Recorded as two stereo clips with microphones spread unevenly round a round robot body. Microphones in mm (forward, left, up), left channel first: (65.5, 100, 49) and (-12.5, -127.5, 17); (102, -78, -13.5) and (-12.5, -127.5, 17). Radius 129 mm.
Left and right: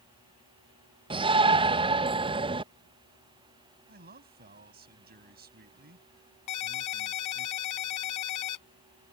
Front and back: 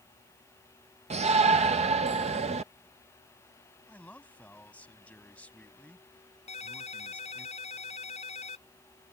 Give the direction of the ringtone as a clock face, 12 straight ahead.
9 o'clock.